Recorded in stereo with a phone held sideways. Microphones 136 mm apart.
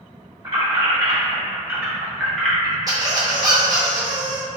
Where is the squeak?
30° right (ahead or behind), 0.6 m.